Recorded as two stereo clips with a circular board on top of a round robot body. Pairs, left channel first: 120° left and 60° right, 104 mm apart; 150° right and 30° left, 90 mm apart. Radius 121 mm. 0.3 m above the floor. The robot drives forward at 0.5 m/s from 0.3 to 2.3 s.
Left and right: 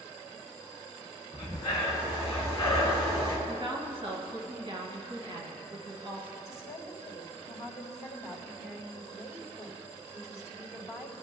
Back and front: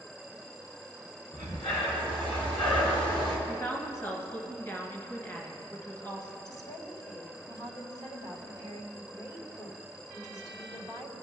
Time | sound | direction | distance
1.3 | breathing | 170° left | 1.4 m
3.5 | a woman speaking | 95° right | 2 m
6.5 | a woman speaking | 175° left | 2 m